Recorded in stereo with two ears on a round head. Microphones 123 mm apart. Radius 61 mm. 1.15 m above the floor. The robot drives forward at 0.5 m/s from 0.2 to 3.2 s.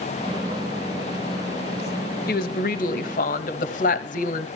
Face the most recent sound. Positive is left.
turn(degrees=65)  # may be behind; listen again after turning